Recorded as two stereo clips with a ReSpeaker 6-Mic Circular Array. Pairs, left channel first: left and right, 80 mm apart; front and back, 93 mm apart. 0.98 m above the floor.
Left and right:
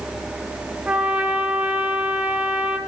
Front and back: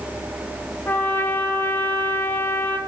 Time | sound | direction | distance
0.9 | a trumpet | 35° right | 0.8 m